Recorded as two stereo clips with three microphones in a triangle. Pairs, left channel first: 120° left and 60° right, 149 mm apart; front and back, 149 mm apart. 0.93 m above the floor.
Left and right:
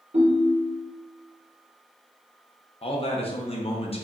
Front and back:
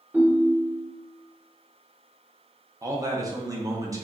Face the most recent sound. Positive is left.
turn(degrees=125)